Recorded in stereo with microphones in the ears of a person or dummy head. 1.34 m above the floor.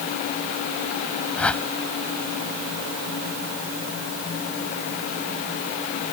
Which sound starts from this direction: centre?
A whoosh, at 1.4 s.